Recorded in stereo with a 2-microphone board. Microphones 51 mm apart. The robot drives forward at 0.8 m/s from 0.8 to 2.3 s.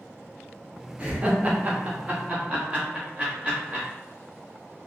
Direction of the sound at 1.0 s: 20° right (ahead or behind).